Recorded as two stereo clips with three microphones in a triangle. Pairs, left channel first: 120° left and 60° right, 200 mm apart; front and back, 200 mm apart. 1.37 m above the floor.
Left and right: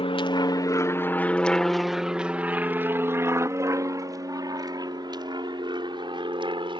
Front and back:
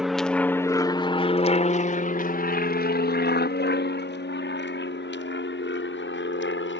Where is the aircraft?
95° left; by 6.8 s 5° left.